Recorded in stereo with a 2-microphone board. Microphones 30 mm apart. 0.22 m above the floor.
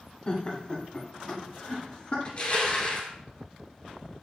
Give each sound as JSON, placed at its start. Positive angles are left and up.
{"t": 0.3, "sound": "laughter", "side_deg": 35, "distance_m": 1.1}
{"t": 2.2, "sound": "crushing", "side_deg": 35, "distance_m": 1.2}